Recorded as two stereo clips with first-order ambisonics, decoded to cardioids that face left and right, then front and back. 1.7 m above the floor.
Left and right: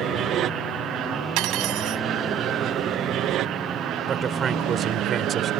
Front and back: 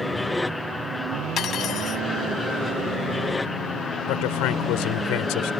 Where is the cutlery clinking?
55° right.